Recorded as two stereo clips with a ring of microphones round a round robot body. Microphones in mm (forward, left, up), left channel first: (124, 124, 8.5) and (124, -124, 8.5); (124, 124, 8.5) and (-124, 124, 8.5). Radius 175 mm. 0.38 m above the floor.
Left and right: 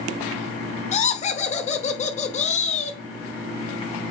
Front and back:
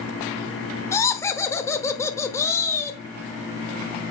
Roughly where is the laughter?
Ahead left.